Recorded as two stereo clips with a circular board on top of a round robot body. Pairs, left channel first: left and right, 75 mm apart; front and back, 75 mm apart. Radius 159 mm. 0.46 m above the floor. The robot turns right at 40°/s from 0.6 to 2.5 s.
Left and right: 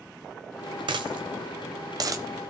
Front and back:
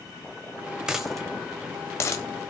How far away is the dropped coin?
About 1.1 m.